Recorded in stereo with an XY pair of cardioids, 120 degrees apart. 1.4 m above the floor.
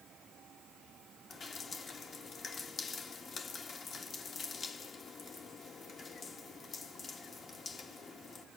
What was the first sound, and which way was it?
Dripping, 35° left.